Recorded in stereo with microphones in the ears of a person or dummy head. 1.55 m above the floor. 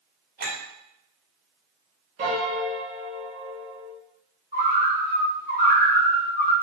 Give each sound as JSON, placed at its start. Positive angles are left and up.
{"t": 0.4, "sound": "a clink", "side_deg": -50, "distance_m": 1.3}
{"t": 2.2, "sound": "a piano", "side_deg": -35, "distance_m": 0.7}
{"t": 4.5, "sound": "a bird", "side_deg": -25, "distance_m": 1.6}